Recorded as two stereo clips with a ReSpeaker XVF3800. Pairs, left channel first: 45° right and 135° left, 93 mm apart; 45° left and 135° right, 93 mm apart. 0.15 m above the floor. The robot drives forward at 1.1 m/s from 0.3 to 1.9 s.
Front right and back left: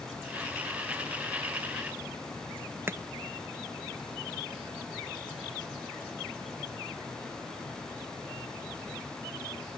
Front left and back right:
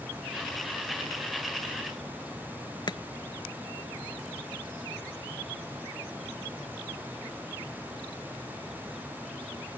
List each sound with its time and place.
2.9 s chopping: 75° left